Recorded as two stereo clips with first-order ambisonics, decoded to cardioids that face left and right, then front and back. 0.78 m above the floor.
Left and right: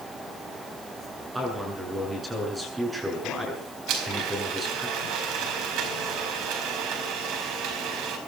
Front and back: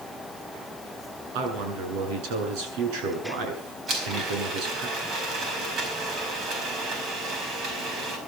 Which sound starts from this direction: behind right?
A blender, at 3.9 s.